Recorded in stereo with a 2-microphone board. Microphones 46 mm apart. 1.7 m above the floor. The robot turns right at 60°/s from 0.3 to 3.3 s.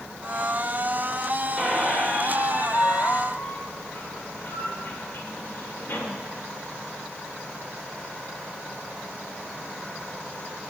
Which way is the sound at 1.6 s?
5° left.